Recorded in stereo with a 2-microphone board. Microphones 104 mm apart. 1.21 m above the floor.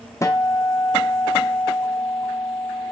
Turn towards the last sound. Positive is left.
turn(degrees=30)  # may be behind; listen again after turning